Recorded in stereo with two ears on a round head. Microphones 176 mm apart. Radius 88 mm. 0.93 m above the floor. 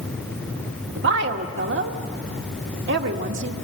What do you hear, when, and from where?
1.0 s a woman speaking: 65° right (ahead or behind), 1.7 m